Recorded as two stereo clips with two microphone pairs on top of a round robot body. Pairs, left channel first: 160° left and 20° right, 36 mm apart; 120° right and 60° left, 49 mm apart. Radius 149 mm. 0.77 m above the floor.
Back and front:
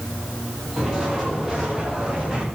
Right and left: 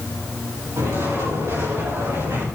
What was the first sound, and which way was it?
Footsteps, 50° left.